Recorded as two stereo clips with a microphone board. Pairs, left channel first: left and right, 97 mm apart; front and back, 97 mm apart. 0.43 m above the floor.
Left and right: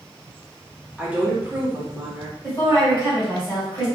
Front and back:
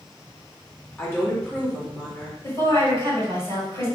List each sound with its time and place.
1.0 s a woman speaking: 35° right, 0.9 m
2.4 s a woman speaking: 30° left, 2.0 m